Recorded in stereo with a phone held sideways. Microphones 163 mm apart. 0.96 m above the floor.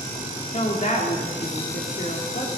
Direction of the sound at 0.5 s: 50° left (ahead or behind).